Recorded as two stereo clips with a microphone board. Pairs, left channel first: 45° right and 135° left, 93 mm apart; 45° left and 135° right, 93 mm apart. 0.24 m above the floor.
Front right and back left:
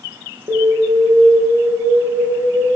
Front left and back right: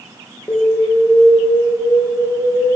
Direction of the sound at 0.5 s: 95° left.